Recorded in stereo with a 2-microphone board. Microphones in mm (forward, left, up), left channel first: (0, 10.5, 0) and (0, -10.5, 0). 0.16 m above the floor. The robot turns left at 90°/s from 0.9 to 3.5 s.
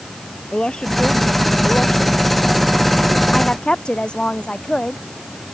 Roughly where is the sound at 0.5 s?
Behind left.